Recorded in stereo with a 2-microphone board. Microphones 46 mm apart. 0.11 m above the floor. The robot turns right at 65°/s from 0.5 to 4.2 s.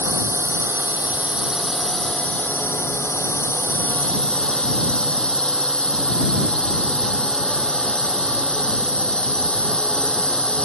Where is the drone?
85° right; by 10.7 s 155° left.